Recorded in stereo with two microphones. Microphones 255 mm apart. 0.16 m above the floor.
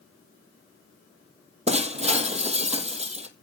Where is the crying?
No crying in this recording.